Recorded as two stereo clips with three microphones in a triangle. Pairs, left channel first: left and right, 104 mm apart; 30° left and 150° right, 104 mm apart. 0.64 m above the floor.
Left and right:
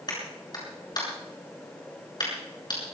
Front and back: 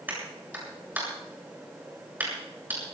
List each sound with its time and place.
0.1 s a clap: 135° left, 7.5 m